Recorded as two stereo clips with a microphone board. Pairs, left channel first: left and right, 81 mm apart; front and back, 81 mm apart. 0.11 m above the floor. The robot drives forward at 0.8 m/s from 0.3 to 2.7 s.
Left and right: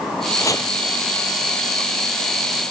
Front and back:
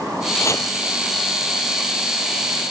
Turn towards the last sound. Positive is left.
turn(degrees=120)